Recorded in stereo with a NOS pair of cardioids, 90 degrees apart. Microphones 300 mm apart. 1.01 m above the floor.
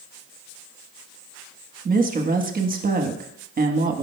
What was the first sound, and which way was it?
A woman speaking, 30° right.